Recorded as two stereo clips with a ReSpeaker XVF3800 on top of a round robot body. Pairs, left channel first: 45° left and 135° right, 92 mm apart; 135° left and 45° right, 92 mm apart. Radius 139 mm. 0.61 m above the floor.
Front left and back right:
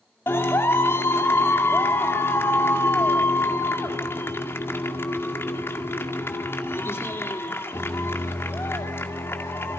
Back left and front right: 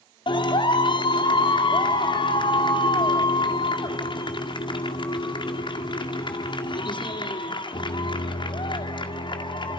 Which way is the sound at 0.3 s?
110° left.